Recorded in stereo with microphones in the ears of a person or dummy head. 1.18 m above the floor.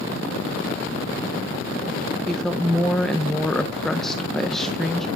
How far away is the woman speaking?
About 0.6 m.